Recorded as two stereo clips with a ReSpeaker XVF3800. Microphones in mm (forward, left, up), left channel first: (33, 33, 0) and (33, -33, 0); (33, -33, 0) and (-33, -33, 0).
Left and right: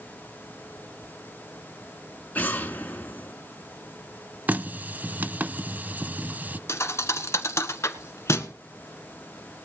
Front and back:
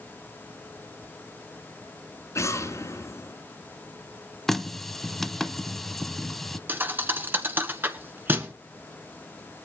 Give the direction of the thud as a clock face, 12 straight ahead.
8 o'clock.